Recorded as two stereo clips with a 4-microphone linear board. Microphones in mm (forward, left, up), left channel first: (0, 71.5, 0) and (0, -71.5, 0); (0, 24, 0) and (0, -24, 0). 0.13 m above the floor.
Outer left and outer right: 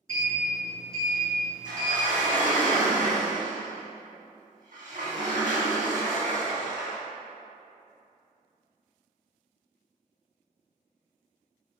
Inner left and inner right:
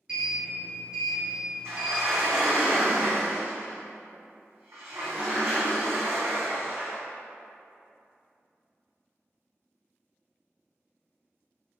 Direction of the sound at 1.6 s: 60° right (ahead or behind).